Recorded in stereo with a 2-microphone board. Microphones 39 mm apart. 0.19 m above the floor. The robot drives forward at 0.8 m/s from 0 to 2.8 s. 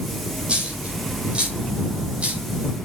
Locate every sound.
0.5 s a dropped coin: 30° right (ahead or behind), 8.5 m; by 2.4 s 35° right (ahead or behind), 7.5 m